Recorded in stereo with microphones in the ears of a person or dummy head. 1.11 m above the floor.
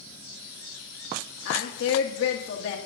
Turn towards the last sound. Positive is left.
turn(degrees=70)  # may be behind; listen again after turning